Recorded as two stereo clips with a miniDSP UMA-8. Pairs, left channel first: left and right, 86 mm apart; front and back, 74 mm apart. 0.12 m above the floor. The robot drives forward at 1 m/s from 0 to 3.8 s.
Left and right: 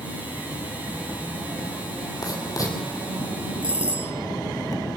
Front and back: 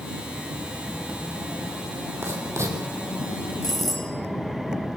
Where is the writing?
130° left, 4 m; by 2.8 s 135° left, 4.5 m.